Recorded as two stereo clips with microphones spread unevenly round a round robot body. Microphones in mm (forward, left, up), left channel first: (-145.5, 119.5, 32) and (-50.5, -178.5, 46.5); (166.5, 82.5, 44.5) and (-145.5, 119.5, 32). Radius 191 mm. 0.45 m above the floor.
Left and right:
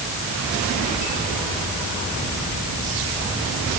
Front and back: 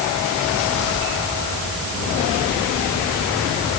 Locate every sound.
Only background noise.